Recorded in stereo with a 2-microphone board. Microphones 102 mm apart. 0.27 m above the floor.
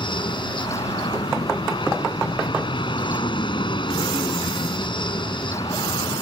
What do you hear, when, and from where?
0.0 s an aircraft: 60° left (ahead or behind)